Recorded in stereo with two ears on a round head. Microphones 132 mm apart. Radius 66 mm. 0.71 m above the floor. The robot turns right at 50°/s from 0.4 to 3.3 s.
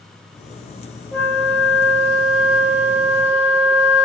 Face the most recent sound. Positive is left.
turn(degrees=-40)